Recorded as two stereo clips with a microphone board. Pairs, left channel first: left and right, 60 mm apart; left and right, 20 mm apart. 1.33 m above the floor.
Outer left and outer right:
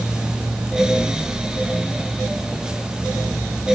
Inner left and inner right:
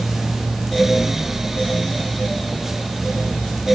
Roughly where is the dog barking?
No dog barking in this recording.